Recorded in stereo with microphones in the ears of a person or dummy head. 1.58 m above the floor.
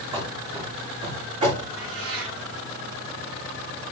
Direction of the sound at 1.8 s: 75° right (ahead or behind).